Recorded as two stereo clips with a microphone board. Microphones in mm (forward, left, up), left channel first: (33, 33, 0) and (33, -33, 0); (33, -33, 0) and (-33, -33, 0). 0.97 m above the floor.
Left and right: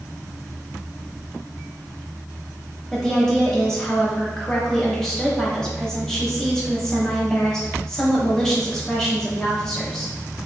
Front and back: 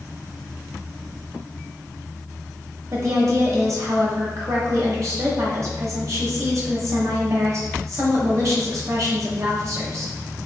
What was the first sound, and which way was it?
A woman speaking, 170° left.